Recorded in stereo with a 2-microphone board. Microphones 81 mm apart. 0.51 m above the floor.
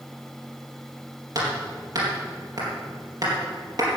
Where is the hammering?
55° right (ahead or behind), 4.5 m.